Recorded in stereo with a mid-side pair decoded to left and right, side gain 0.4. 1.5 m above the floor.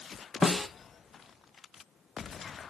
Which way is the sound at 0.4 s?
20° left.